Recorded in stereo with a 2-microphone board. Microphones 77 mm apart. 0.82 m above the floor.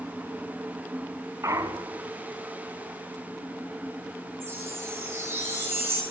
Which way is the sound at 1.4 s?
40° right (ahead or behind).